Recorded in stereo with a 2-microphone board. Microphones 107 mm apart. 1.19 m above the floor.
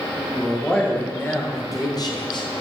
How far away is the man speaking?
About 1.5 m.